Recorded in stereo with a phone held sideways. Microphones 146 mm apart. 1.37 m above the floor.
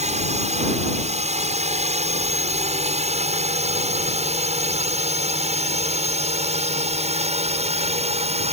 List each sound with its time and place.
0.0 s a drone: 50° right (ahead or behind); by 8.5 s 45° right (ahead or behind)